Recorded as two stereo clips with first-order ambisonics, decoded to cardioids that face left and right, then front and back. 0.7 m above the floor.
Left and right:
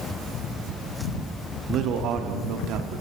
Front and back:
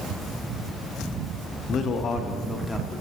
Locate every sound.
1.7 s a man speaking: 45° right, 0.8 m; by 3.0 s 80° right, 1.3 m